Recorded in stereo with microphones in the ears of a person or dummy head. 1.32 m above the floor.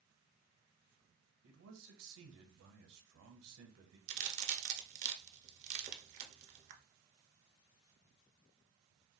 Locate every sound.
1.4 s a man speaking: 80° right, 0.9 m
4.1 s a crack: 40° right (ahead or behind), 0.6 m